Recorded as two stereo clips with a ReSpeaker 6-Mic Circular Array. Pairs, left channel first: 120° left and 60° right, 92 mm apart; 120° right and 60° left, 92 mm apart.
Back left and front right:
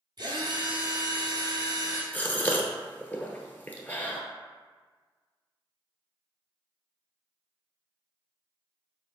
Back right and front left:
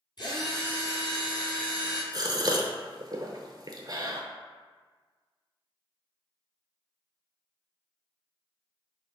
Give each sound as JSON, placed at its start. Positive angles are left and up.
{"t": 0.2, "sound": "a drill", "azimuth_deg": -95, "distance_m": 1.6}
{"t": 2.1, "sound": "a gasp", "azimuth_deg": 60, "distance_m": 0.8}